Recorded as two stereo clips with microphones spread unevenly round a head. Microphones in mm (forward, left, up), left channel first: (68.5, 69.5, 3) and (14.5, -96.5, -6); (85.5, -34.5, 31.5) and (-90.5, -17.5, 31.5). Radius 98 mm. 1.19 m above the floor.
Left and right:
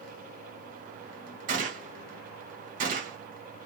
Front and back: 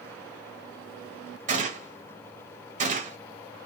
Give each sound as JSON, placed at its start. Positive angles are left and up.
{"t": 1.5, "sound": "a gunshot", "azimuth_deg": -145, "distance_m": 1.1}